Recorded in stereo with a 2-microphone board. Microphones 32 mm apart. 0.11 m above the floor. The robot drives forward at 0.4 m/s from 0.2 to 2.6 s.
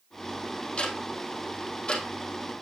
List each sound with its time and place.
0.8 s ticking: 35° left (ahead or behind), 2 m; by 2.6 s 25° left (ahead or behind), 3 m